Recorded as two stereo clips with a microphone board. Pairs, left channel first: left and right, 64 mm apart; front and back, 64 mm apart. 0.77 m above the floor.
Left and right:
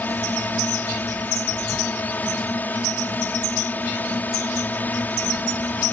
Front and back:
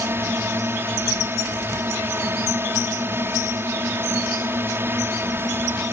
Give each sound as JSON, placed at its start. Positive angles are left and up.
{"t": 0.0, "sound": "a drone", "azimuth_deg": 140}